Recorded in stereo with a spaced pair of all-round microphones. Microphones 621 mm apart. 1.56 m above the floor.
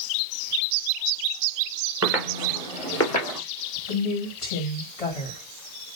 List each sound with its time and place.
2.0 s footsteps: 25° right (ahead or behind), 1.8 m; by 3.4 s 35° left (ahead or behind), 2 m
3.9 s a woman speaking: 60° left (ahead or behind), 2.5 m